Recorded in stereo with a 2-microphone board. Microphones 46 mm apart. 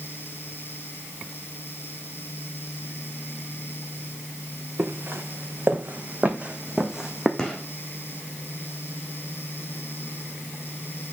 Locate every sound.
4.8 s footsteps: 55° right (ahead or behind), 1.9 m; by 7.3 s 10° right (ahead or behind), 1.5 m
7.4 s a gunshot: 10° left (ahead or behind), 1.9 m